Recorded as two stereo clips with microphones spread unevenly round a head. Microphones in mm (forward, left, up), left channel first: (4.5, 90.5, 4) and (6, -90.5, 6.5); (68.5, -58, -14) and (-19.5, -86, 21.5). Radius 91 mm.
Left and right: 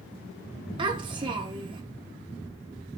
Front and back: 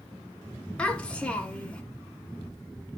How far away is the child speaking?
About 0.6 m.